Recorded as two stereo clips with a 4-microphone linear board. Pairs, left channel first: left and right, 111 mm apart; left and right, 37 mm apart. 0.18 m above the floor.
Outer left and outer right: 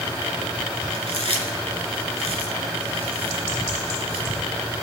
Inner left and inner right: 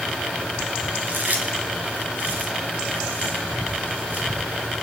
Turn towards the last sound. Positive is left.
turn(degrees=-60)  # may be behind; listen again after turning